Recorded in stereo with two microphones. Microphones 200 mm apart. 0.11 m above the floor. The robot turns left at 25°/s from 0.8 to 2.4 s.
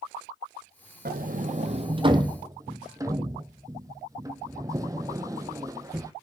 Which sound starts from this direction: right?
A sliding door, at 1.1 s.